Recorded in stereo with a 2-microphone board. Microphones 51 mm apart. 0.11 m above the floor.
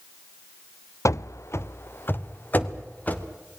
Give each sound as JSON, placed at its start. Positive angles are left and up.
{"t": 1.1, "sound": "running footsteps", "side_deg": 85, "distance_m": 0.7}